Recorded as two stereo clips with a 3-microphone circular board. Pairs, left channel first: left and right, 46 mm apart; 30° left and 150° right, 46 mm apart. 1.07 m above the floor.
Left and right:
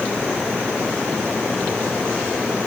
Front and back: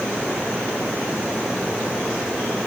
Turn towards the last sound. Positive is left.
No sound to turn to.